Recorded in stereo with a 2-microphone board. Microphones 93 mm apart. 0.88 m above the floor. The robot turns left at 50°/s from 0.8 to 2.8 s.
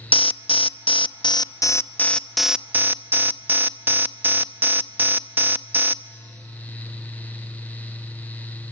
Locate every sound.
0.1 s an alarm: 80° left, 0.6 m; by 6.0 s 20° right, 0.6 m